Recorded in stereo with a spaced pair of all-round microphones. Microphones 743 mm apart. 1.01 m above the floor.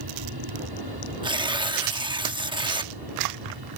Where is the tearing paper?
5° right (ahead or behind).